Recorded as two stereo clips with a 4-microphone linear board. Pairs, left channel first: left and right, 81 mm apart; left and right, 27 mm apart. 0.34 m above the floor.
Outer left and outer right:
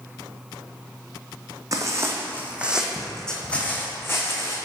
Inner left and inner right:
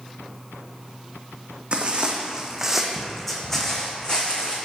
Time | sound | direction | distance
1.7 | footsteps | 45° right (ahead or behind) | 1.0 m